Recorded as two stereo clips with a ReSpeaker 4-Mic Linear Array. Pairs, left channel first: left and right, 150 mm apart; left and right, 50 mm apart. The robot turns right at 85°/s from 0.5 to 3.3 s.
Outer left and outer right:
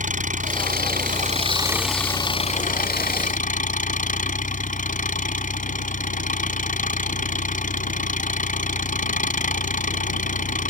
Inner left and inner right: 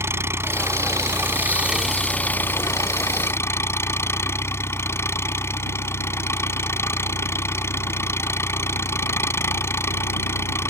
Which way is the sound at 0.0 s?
120° right.